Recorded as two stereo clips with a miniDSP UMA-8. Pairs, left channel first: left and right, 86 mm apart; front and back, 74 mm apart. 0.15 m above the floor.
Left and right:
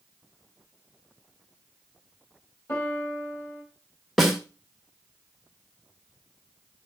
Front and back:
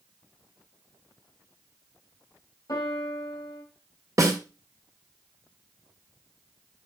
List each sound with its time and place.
2.7 s a piano: 30° left, 4.5 m
4.2 s a snare drum: straight behind, 2.5 m